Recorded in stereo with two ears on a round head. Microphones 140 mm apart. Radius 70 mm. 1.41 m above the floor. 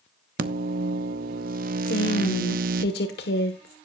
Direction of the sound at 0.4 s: 60° right (ahead or behind).